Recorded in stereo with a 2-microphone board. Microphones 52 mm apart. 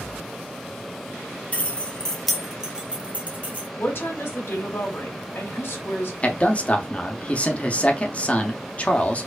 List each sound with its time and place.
1.5 s keys jangling: 30° left (ahead or behind), 0.8 m; by 3.7 s 35° right (ahead or behind), 1.2 m
3.8 s a woman speaking: 50° left (ahead or behind), 2.5 m
6.2 s a man speaking: 30° left (ahead or behind), 0.7 m